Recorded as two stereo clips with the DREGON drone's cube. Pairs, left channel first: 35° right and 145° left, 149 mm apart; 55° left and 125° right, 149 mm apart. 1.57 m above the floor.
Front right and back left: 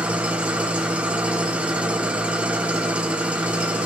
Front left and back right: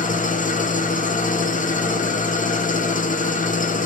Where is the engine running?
65° left, 0.8 m.